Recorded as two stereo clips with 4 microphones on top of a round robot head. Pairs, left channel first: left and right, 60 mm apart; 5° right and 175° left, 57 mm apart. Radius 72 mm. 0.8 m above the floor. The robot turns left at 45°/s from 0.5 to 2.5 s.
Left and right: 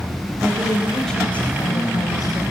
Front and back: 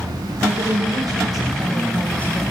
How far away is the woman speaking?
About 4.5 m.